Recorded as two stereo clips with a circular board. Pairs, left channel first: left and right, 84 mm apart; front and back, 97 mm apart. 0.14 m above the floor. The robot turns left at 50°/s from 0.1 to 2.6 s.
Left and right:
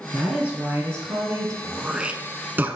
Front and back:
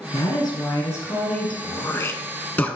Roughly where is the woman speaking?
Ahead.